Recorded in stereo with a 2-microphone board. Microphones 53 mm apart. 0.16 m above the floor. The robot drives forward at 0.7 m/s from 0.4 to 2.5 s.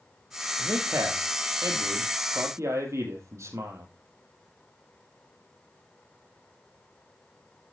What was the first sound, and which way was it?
A man speaking, 75° right (ahead or behind).